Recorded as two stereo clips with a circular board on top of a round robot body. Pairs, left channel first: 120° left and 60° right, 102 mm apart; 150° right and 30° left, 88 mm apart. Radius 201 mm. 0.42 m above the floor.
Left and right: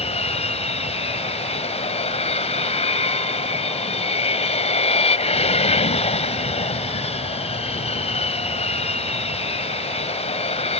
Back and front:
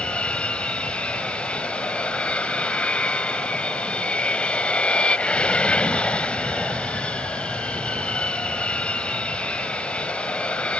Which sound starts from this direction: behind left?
An aircraft, at 0.0 s.